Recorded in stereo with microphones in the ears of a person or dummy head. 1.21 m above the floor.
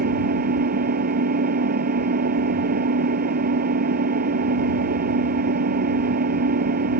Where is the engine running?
50° right (ahead or behind).